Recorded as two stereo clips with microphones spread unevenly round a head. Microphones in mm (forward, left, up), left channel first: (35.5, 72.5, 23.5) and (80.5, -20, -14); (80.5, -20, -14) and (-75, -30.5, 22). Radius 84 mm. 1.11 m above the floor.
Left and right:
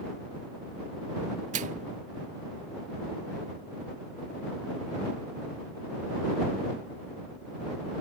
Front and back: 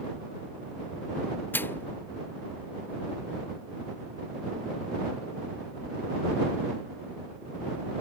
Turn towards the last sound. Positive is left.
turn(degrees=-75)